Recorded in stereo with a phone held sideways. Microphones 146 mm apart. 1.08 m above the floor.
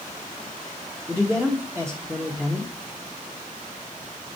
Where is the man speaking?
5° left (ahead or behind), 1.5 m.